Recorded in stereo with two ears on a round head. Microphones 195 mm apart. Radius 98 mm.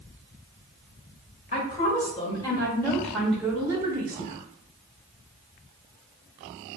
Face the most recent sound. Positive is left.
turn(degrees=-30)  # may be behind; listen again after turning